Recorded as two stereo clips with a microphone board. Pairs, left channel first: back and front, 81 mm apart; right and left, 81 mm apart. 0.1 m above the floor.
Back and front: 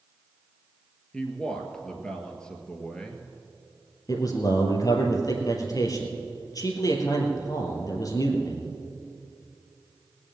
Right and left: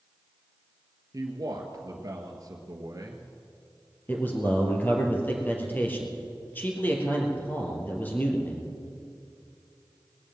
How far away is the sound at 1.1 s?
About 1.6 m.